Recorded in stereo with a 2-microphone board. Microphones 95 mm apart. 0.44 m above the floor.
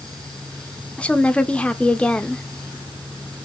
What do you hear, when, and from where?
1.0 s a woman speaking: 10° left (ahead or behind), 0.8 m